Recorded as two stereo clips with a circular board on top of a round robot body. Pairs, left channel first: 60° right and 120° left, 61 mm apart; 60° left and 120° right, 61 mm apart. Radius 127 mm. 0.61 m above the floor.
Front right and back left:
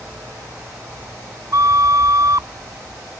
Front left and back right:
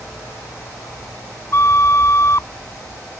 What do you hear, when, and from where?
1.5 s a flute: 100° left